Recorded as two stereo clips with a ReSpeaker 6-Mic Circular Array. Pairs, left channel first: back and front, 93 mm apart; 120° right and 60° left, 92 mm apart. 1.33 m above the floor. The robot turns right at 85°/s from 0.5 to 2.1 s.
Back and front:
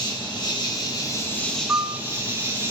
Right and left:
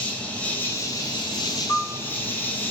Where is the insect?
170° left, 1.7 m; by 2.7 s 55° right, 1.7 m.